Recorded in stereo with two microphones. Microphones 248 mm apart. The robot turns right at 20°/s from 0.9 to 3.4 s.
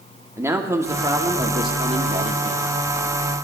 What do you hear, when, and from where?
0.4 s a man speaking: 160° right, 1.3 m; by 2.6 s 125° right, 1.3 m